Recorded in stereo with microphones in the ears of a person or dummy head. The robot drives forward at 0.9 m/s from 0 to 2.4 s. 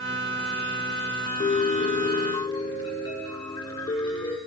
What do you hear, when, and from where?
1.4 s a piano: 25° left (ahead or behind), 1.0 m; by 4.4 s 20° left (ahead or behind), 1.2 m